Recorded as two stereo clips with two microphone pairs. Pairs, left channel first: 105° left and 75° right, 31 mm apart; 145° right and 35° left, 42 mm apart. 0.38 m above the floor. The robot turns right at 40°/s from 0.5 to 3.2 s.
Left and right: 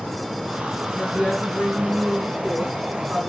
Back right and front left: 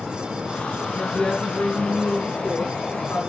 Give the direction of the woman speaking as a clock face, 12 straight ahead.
8 o'clock.